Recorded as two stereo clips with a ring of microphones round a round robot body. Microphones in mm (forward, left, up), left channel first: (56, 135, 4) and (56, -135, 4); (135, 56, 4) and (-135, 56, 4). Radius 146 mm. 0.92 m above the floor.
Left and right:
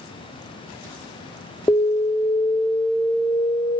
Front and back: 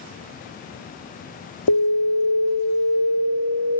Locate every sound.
1.7 s an alarm: 10° left, 1.5 m